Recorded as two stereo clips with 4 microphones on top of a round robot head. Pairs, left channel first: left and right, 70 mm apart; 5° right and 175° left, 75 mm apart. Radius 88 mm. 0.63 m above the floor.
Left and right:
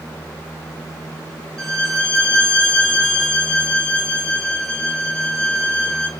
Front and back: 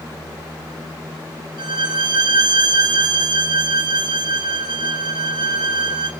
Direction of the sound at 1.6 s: 170° left.